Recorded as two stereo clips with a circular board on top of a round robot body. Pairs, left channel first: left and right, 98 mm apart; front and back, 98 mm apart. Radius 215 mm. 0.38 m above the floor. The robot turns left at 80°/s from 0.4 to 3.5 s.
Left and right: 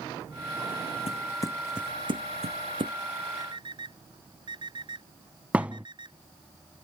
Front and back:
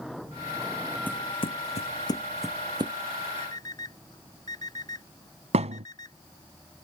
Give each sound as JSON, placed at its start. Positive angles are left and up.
{"t": 1.1, "sound": "footsteps", "azimuth_deg": 75}
{"t": 3.4, "sound": "an alarm clock", "azimuth_deg": -40}
{"t": 5.5, "sound": "a thud", "azimuth_deg": -170}